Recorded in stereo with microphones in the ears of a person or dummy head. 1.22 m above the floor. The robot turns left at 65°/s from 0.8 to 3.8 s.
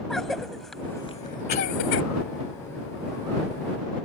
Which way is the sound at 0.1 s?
Centre (ahead or behind).